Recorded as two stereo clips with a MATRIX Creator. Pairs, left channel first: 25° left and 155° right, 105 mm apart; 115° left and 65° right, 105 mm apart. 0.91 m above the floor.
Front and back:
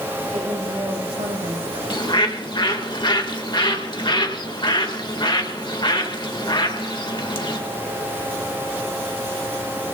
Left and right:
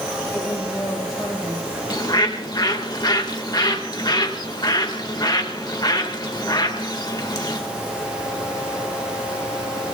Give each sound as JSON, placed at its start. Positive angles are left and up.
{"t": 0.3, "sound": "a woman speaking", "azimuth_deg": -165, "distance_m": 5.0}
{"t": 1.9, "sound": "a bird", "azimuth_deg": 65, "distance_m": 1.9}